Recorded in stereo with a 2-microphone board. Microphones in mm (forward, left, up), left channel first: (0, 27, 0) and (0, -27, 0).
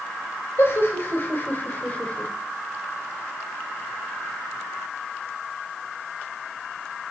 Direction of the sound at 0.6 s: 50° left (ahead or behind).